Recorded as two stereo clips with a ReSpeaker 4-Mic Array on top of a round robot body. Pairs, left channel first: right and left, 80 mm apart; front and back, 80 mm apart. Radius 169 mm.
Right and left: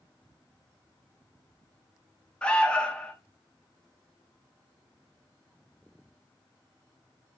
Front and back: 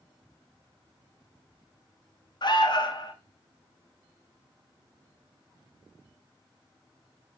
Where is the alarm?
15° right, 0.6 m.